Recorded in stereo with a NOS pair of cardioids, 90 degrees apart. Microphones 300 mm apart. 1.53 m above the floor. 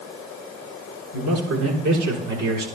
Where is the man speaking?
70° right, 7 m; by 2.7 s 65° right, 5 m.